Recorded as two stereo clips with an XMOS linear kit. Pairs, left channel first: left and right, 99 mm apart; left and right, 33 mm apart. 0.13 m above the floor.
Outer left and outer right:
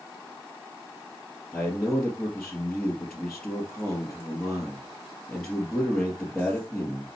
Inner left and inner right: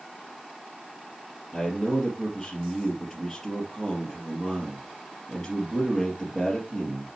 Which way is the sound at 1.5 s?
5° left (ahead or behind).